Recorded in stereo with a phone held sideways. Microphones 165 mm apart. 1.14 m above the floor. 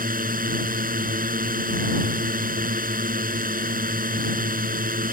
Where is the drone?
55° right (ahead or behind).